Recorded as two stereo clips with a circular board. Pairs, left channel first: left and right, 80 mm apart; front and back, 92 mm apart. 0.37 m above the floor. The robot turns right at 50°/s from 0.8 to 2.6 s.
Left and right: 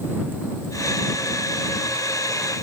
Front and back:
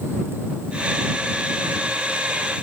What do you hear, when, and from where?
Only background noise.